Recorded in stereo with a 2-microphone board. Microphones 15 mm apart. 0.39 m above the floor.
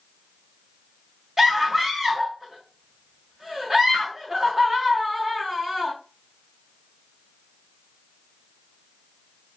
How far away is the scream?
About 1.1 m.